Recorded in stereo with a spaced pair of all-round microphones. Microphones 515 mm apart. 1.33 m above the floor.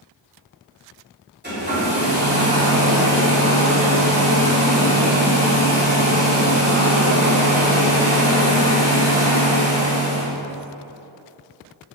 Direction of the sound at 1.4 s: 20° right (ahead or behind).